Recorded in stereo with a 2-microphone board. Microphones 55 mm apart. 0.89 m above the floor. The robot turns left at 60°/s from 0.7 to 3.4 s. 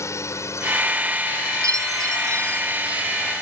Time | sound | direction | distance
0.0 | a drone | 60° left (ahead or behind) | ?
1.6 | a chime | 75° right | ?